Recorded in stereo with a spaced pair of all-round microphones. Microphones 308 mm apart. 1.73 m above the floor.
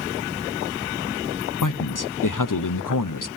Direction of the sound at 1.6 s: 85° left.